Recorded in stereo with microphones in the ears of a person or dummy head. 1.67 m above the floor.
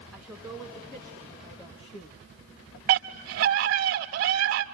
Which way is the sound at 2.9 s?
65° right (ahead or behind).